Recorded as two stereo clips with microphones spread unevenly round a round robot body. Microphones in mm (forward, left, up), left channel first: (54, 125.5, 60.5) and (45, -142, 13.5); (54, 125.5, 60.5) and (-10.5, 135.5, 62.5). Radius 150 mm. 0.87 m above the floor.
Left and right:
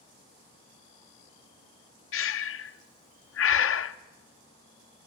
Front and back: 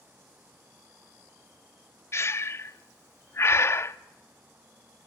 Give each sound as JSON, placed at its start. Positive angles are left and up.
{"t": 2.1, "sound": "breathing", "azimuth_deg": 45, "distance_m": 0.7}